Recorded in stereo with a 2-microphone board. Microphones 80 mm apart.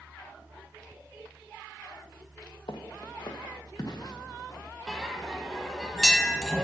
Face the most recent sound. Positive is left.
turn(degrees=5)  # may be behind; listen again after turning